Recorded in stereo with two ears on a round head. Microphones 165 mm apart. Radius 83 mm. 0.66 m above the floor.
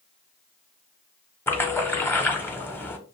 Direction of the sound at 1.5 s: 10° left (ahead or behind).